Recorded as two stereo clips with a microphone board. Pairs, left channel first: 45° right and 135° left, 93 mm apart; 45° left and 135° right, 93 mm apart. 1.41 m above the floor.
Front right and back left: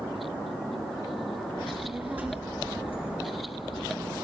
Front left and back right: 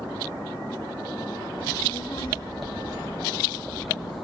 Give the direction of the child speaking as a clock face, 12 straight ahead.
10 o'clock.